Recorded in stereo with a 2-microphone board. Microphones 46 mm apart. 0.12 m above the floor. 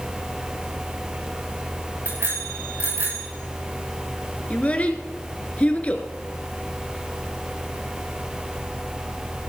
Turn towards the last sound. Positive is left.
turn(degrees=30)  # may be behind; listen again after turning